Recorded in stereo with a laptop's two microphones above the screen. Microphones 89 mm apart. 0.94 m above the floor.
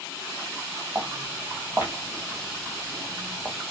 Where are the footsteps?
15° right (ahead or behind), 2 m; by 3.6 s 5° right (ahead or behind), 1.4 m.